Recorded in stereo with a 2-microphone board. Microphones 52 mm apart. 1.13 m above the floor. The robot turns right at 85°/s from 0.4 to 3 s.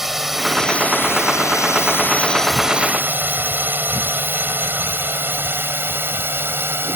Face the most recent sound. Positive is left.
turn(degrees=-50)  # may be behind; listen again after turning